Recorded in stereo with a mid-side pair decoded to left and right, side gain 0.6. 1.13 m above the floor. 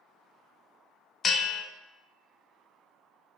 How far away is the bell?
About 0.6 m.